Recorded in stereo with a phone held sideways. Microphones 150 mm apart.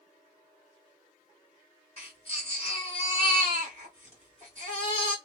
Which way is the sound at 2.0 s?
40° left (ahead or behind).